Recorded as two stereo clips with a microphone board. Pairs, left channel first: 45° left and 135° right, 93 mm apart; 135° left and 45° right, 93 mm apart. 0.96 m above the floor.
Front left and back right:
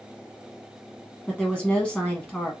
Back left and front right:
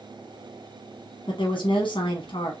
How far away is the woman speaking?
About 0.9 m.